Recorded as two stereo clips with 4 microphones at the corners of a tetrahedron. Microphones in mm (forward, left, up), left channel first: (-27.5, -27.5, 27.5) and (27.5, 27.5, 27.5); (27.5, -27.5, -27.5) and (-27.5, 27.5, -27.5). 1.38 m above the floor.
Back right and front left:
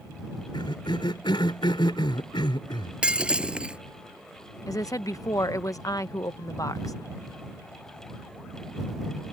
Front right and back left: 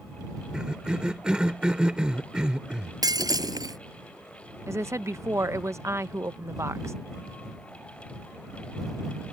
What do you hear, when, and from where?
0.5 s a cough: 145° right
3.0 s breaking glass: 120° left
4.7 s a woman speaking: 175° right